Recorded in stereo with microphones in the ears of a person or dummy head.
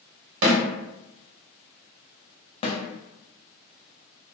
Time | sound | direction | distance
0.4 | a snare drum | 65° right (ahead or behind) | 1.3 m
2.6 | a snare drum | 30° left (ahead or behind) | 0.6 m